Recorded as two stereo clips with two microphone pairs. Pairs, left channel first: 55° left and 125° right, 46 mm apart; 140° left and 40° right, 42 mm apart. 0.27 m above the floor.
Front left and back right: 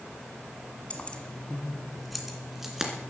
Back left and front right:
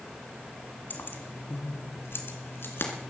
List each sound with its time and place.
0.9 s keys jangling: 110° left, 1.8 m; by 2.9 s 155° left, 2.5 m